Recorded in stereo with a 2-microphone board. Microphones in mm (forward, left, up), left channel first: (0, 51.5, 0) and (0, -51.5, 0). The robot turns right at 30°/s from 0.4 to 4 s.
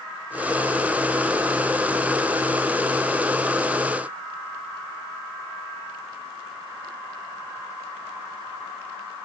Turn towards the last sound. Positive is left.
No sound to turn to.